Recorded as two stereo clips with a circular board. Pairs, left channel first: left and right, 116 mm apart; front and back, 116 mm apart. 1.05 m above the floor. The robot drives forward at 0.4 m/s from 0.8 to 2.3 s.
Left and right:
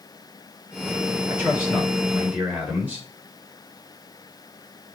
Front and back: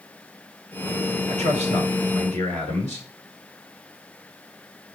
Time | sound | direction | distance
1.3 | a man speaking | 165° right | 3 m